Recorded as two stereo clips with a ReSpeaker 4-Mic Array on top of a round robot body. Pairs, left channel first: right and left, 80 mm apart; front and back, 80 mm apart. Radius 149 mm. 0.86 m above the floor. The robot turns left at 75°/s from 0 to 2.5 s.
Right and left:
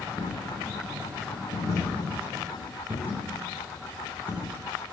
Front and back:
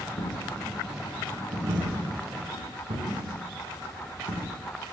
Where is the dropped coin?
30° right, 4 m; by 4.5 s 160° left, 4 m.